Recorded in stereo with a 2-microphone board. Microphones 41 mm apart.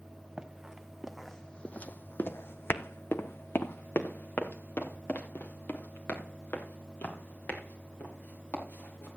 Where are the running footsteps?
15° right (ahead or behind), 1.3 m; by 9.1 s 45° left (ahead or behind), 5.5 m.